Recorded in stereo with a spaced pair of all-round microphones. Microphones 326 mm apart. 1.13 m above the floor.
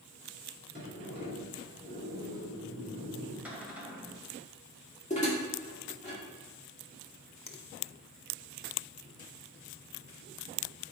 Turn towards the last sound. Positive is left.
turn(degrees=80)